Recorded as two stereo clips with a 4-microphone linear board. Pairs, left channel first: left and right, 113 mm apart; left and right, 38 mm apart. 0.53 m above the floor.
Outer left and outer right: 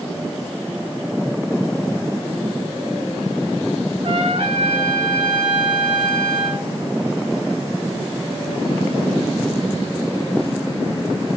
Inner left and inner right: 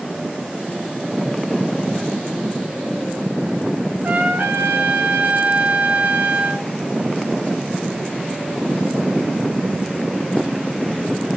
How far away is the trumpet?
About 3 m.